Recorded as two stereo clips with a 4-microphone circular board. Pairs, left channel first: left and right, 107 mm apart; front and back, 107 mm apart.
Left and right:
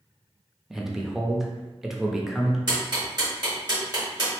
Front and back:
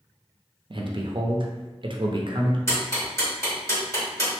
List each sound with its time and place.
0.7 s a man speaking: 175° right, 0.5 m
2.7 s ticking: 55° right, 1.9 m